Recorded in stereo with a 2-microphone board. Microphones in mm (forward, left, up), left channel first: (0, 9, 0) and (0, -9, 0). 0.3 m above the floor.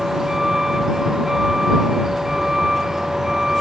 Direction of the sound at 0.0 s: 20° right (ahead or behind).